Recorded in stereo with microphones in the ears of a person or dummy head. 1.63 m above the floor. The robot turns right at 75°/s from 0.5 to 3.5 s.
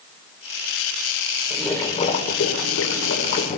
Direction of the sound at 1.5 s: 10° right.